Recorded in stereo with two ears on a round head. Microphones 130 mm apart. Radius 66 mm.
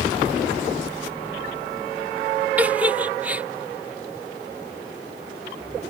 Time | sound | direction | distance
2.6 | a giggle | 10° right (ahead or behind) | ?